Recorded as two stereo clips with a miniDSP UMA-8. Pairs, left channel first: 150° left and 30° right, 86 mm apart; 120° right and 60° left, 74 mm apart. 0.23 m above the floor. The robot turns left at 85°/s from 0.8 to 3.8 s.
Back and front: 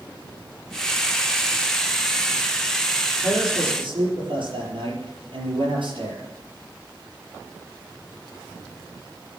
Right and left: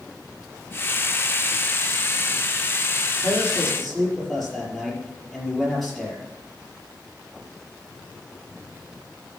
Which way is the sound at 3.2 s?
20° left.